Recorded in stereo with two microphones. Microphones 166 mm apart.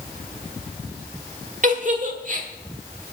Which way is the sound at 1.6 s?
50° right (ahead or behind).